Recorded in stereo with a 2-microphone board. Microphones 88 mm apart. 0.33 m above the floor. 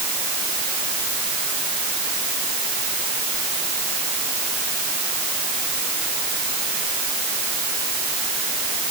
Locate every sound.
Only background noise.